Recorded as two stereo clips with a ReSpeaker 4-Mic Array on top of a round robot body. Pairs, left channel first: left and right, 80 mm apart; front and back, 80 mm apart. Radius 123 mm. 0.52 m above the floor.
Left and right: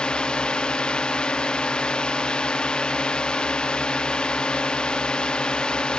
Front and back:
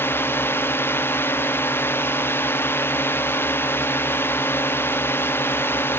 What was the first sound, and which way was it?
A drone, 20° left.